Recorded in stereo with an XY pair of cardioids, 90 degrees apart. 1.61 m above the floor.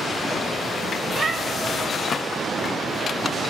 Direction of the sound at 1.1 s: 45° right.